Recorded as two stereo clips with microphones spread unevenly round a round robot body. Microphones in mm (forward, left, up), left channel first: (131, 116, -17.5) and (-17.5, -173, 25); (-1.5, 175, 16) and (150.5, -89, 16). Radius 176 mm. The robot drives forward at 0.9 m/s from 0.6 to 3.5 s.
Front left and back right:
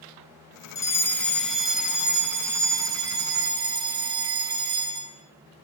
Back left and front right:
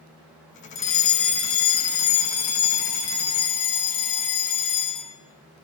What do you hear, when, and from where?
0.8 s a fire alarm: 130° left, 2 m; by 5.2 s 160° left, 4 m